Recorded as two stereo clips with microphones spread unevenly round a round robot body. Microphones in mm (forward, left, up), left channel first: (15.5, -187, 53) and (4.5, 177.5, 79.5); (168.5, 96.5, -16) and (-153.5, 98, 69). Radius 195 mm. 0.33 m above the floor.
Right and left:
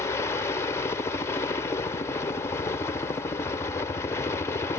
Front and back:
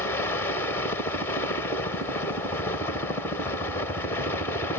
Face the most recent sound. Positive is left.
turn(degrees=-25)